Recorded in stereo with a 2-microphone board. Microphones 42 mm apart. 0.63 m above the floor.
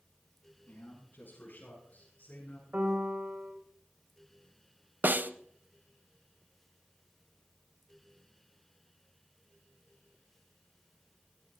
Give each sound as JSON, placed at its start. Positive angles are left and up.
{"t": 0.7, "sound": "a man speaking", "side_deg": 45, "distance_m": 9.5}
{"t": 2.7, "sound": "a piano", "side_deg": -45, "distance_m": 2.5}
{"t": 5.0, "sound": "a snare drum", "side_deg": -45, "distance_m": 0.5}